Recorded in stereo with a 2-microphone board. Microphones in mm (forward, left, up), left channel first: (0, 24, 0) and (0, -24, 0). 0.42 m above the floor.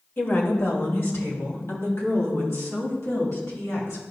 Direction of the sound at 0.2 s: 45° left (ahead or behind).